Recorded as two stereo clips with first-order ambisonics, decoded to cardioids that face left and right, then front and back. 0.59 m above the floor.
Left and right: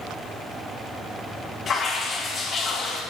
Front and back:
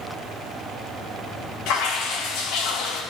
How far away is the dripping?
About 2.5 m.